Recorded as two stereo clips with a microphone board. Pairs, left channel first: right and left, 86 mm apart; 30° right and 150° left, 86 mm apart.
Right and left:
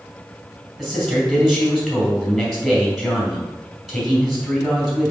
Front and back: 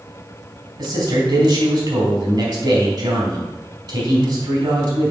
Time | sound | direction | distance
0.8 | a man speaking | straight behind | 3.5 m